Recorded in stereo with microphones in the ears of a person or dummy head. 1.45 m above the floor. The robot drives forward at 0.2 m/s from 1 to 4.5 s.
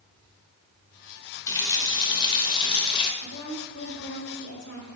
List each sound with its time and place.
1.5 s a running tap: 20° left (ahead or behind), 1.1 m; by 3.1 s 30° left (ahead or behind), 0.9 m
3.2 s a woman speaking: 75° left (ahead or behind), 3 m; by 4.9 s 70° left (ahead or behind), 3 m